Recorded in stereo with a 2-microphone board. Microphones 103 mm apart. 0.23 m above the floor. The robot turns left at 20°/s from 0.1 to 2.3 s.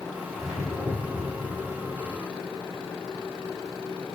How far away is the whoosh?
About 6 m.